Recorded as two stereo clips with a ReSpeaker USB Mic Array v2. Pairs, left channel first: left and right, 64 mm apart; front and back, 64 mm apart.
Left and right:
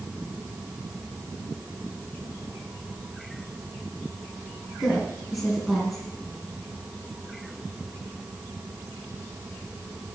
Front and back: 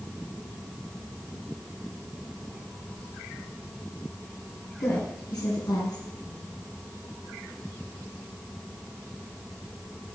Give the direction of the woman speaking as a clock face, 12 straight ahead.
12 o'clock.